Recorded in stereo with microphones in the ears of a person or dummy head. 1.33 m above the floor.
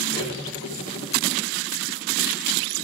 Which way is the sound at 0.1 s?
40° left (ahead or behind).